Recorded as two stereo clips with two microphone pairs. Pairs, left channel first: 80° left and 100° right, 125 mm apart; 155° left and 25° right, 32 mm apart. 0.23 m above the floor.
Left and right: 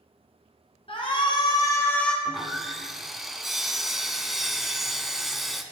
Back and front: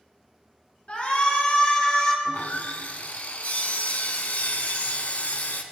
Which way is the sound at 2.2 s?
175° left.